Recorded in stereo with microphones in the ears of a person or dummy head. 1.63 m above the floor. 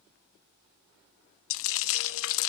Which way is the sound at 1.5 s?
70° left (ahead or behind).